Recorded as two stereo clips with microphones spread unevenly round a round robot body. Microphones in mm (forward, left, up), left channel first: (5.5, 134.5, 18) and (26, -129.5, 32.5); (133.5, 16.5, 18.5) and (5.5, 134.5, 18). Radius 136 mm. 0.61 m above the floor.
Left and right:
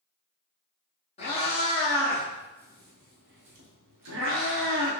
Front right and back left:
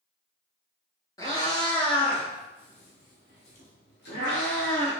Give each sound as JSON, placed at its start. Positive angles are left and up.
{"t": 1.2, "sound": "a cat meowing", "azimuth_deg": 25, "distance_m": 1.3}